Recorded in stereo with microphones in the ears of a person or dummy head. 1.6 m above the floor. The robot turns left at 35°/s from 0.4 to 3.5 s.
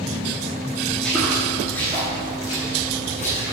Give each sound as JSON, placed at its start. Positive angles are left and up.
{"t": 0.9, "sound": "footsteps", "side_deg": 5, "distance_m": 1.6}